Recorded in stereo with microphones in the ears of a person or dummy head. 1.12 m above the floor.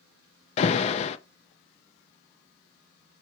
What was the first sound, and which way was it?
An alarm, 30° left (ahead or behind).